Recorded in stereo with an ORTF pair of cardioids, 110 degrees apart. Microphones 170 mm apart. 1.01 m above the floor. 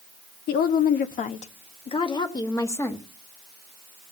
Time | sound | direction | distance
0.5 | a woman speaking | 70° left | 1.2 m